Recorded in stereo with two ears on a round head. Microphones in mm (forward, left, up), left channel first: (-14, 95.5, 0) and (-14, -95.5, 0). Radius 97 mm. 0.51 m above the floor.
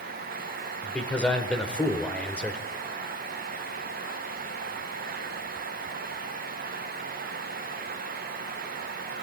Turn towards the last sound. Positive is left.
turn(degrees=5)  # may be behind; listen again after turning